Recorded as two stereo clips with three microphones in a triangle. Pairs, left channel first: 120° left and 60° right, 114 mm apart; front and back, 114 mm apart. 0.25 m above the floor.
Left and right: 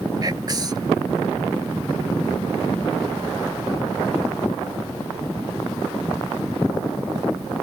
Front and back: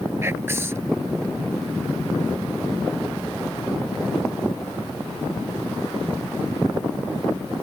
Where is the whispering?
115° right.